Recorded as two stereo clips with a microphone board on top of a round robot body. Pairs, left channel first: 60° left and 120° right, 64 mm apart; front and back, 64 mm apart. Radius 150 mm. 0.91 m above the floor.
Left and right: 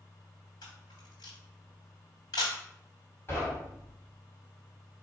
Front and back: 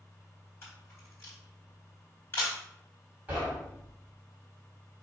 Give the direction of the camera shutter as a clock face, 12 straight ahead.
10 o'clock.